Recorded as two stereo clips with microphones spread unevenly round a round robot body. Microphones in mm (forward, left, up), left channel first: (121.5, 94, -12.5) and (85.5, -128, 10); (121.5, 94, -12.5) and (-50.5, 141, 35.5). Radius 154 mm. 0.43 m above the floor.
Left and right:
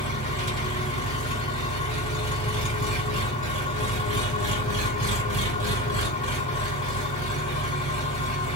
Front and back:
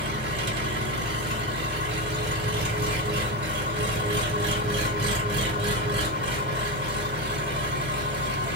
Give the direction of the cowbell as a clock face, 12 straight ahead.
I don't hear a cowbell.